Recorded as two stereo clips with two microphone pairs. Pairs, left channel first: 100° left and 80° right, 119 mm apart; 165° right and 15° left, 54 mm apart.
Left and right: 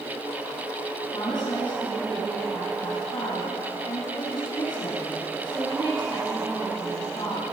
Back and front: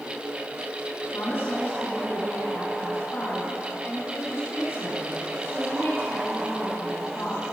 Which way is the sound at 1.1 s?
150° left.